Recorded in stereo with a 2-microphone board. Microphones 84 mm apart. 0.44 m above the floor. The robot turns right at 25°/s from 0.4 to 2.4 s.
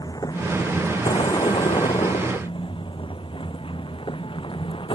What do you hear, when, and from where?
0.0 s a vehicle: 50° left (ahead or behind); by 5.0 s 90° left